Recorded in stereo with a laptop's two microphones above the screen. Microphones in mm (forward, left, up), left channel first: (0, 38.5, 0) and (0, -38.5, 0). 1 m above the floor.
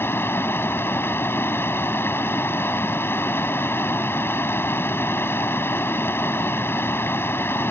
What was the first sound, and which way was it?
Running water, 30° left (ahead or behind).